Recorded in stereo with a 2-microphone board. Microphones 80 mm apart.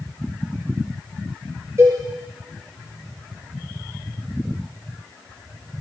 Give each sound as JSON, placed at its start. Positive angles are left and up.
{"t": 1.8, "sound": "a cowbell", "side_deg": -45, "distance_m": 3.5}